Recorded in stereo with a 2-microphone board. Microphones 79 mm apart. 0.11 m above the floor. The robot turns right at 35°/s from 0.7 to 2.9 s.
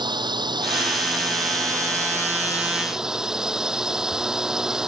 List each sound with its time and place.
0.0 s a drone: 85° right; by 4.9 s 10° right